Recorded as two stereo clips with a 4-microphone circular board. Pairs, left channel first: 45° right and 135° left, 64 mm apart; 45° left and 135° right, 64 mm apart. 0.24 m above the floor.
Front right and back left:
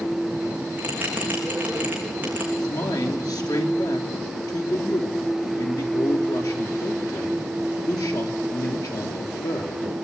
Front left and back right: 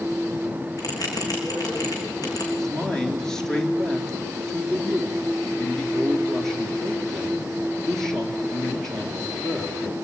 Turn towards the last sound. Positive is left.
turn(degrees=-35)